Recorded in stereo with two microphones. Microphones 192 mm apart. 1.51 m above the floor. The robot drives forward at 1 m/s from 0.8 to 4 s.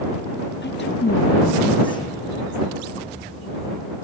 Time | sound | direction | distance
0.6 | a woman speaking | 65° left (ahead or behind) | ?